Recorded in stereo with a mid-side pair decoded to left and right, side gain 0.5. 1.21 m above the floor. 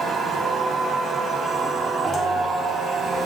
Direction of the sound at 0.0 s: 30° right.